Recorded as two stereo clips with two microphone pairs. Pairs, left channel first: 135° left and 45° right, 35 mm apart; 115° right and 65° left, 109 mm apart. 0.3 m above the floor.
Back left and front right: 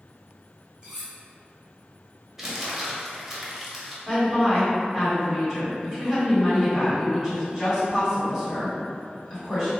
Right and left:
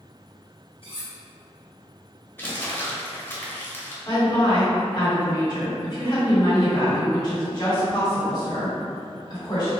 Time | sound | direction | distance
0.8 | cutlery clinking | 105° right | 1.3 m
2.4 | crumpling | 100° right | 0.7 m
4.0 | a woman speaking | 140° right | 1.8 m